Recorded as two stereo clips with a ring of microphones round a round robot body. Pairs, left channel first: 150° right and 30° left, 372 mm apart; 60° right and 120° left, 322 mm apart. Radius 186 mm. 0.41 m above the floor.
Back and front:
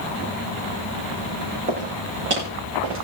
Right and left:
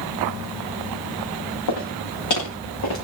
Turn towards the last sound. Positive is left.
turn(degrees=-25)